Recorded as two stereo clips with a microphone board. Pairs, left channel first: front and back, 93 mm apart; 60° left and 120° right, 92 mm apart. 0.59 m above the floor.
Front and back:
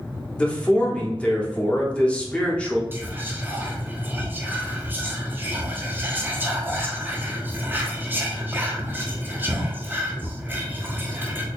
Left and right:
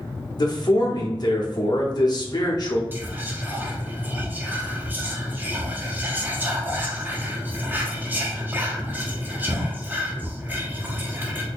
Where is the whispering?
155° right, 0.7 m.